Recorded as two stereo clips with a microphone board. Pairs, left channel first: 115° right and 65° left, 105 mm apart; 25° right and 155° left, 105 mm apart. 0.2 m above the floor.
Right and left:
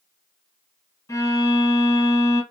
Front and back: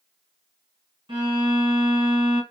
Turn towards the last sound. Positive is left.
turn(degrees=-170)